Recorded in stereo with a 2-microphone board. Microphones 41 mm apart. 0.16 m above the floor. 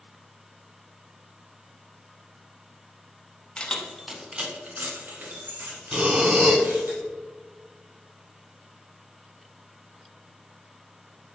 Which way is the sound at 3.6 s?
25° left (ahead or behind).